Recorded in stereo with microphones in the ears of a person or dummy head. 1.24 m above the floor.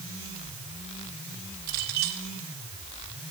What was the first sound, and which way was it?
A clink, 55° right (ahead or behind).